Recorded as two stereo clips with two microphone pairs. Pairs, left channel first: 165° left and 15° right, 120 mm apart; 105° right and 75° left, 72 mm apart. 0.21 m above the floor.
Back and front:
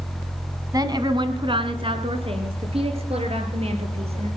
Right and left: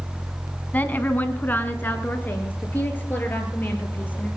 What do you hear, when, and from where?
0.7 s a woman speaking: 50° right, 1.3 m; by 4.3 s 40° right, 4.5 m